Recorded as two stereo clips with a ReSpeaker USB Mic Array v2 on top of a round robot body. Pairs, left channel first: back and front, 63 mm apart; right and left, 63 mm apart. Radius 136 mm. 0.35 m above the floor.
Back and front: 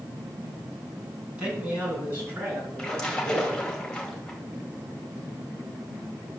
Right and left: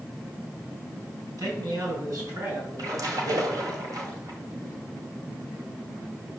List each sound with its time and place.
1.4 s a man speaking: 70° left, 5 m; by 3.7 s 55° left, 7.5 m
2.8 s a splash: 105° left, 2.5 m